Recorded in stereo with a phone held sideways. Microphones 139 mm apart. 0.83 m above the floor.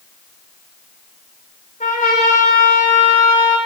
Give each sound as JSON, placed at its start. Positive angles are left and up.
{"t": 1.8, "sound": "a trumpet", "side_deg": 75, "distance_m": 3.5}